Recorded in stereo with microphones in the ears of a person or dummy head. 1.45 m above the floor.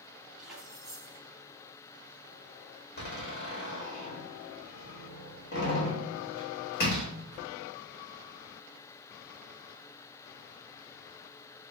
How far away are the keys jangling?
About 2.5 m.